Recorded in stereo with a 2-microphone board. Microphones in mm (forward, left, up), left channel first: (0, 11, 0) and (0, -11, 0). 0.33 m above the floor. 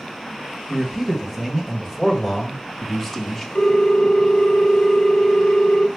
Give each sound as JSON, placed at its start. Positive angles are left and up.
{"t": 0.7, "sound": "a man speaking", "side_deg": -30, "distance_m": 1.4}
{"t": 3.5, "sound": "a ringtone", "side_deg": 50, "distance_m": 1.1}